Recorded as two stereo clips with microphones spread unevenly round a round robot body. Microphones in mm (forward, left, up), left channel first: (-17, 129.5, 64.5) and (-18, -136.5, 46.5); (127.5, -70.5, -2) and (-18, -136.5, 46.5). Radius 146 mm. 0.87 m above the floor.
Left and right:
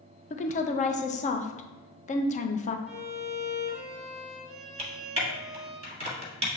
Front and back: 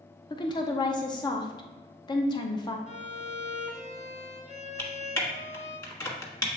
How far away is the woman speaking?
About 0.5 m.